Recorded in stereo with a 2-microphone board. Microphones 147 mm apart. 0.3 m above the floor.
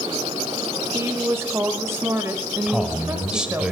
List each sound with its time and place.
0.9 s a woman speaking: 20° right (ahead or behind), 1.0 m
2.7 s a man speaking: 5° right (ahead or behind), 1.3 m